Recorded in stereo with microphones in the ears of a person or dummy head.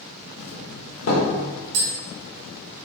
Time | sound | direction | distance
0.4 | a doorbell | 75° left (ahead or behind) | 1.3 m
1.7 | tapping | 65° right (ahead or behind) | 1.4 m